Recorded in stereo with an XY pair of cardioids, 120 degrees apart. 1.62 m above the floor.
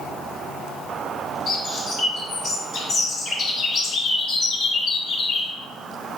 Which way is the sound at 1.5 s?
45° left.